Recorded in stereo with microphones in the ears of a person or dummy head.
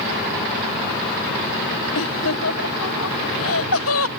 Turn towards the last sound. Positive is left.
turn(degrees=80)